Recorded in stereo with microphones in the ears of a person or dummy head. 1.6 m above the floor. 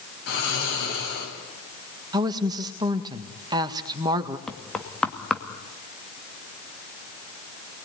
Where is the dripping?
No dripping in this recording.